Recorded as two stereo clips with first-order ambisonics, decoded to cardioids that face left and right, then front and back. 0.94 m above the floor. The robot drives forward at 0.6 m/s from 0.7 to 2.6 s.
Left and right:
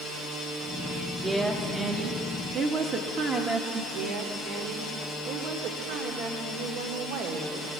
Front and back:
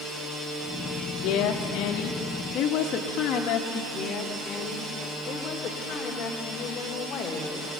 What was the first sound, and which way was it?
A woman speaking, 20° right.